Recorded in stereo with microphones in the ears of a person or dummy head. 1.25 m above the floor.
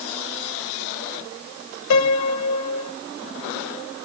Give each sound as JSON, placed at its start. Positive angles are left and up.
{"t": 1.9, "sound": "a piano", "side_deg": 75, "distance_m": 0.7}